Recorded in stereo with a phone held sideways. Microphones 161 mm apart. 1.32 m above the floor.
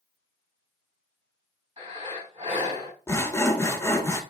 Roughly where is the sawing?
Centre.